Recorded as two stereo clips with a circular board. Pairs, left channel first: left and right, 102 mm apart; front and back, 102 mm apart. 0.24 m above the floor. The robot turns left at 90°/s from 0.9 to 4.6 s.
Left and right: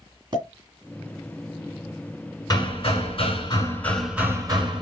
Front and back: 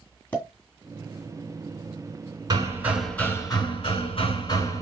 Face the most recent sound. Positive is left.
turn(degrees=-50)